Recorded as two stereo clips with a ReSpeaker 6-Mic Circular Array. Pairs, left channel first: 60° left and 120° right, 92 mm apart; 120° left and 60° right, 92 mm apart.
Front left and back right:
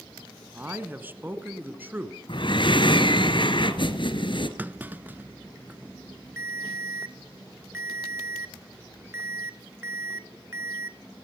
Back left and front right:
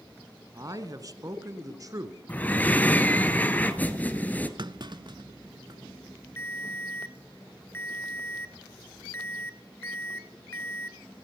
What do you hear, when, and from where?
0.5 s a man speaking: 65° right, 1.3 m
2.3 s breathing: 50° left, 1.3 m
4.6 s a clunk: 55° right, 0.6 m
6.4 s a ringtone: straight behind, 0.8 m